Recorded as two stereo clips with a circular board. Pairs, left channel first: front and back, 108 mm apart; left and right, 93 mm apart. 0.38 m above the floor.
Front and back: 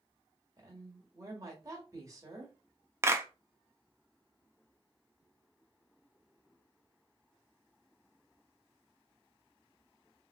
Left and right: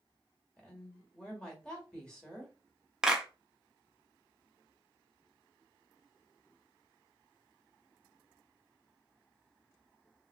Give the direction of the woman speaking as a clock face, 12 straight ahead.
7 o'clock.